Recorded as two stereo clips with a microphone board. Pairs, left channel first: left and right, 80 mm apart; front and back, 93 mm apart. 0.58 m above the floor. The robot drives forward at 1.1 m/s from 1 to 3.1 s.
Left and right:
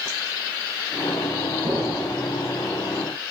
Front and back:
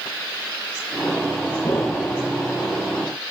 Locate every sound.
1.6 s an explosion: 50° right, 7 m; by 2.2 s 55° right, 6.5 m